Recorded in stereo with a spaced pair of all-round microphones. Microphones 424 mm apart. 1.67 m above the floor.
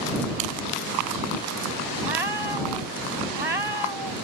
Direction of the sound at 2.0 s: 75° right (ahead or behind).